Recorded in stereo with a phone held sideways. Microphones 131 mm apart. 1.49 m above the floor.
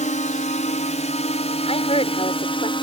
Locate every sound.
0.0 s a drone: 70° left (ahead or behind); by 2.8 s 40° left (ahead or behind)
1.7 s a woman speaking: 50° left (ahead or behind)